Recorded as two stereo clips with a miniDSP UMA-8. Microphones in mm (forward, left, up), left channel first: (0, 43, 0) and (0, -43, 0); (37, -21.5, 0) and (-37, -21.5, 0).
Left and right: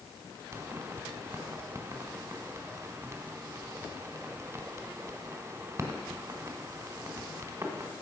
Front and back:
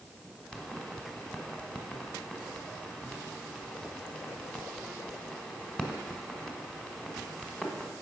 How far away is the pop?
About 1.4 m.